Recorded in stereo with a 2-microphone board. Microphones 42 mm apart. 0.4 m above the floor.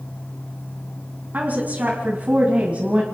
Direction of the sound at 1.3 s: 40° right (ahead or behind).